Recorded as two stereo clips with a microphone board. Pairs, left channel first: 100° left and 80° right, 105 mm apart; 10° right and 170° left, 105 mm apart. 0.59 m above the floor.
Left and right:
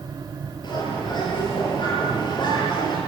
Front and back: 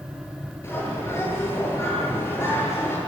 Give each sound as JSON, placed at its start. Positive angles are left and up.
{"t": 0.6, "sound": "a bird", "azimuth_deg": 55, "distance_m": 10.0}